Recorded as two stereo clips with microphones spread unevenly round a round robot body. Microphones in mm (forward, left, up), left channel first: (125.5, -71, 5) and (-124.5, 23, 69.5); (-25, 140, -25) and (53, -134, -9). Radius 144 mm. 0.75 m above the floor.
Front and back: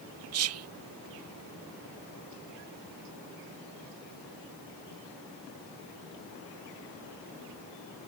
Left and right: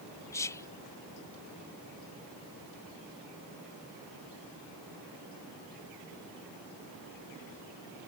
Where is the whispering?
Straight behind.